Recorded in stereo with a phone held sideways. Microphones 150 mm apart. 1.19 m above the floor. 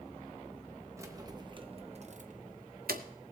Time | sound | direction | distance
1.0 | keys jangling | 20° right (ahead or behind) | 1.1 m